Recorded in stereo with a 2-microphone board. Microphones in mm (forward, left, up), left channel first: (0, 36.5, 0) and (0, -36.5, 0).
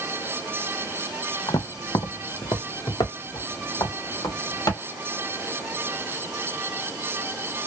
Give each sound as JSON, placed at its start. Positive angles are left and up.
{"t": 1.5, "sound": "footsteps", "side_deg": 65, "distance_m": 0.6}